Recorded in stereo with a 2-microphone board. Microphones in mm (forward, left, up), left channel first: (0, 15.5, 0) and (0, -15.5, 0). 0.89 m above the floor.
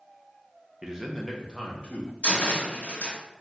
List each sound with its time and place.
0.8 s a man speaking: 20° right (ahead or behind), 0.5 m; by 2.1 s 40° left (ahead or behind), 0.8 m
2.2 s a cupboard door: 55° left (ahead or behind), 1.0 m